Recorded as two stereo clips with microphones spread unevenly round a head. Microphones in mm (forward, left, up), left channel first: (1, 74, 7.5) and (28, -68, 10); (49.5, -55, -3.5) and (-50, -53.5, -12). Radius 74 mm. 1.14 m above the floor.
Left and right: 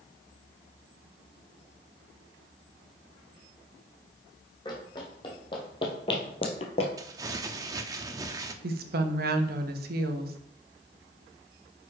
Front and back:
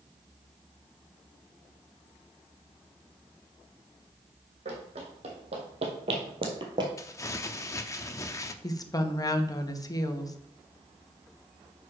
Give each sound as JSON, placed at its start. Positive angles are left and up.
{"t": 4.7, "sound": "running footsteps", "azimuth_deg": 165, "distance_m": 3.0}
{"t": 7.0, "sound": "crumpling", "azimuth_deg": -30, "distance_m": 0.7}
{"t": 8.6, "sound": "a woman speaking", "azimuth_deg": -55, "distance_m": 1.1}